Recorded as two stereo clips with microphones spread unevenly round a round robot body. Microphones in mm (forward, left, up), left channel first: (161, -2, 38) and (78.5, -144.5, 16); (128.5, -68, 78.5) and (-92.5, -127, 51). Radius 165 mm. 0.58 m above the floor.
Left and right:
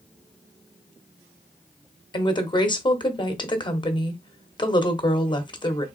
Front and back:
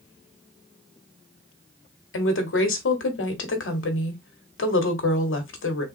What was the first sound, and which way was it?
A woman speaking, 5° right.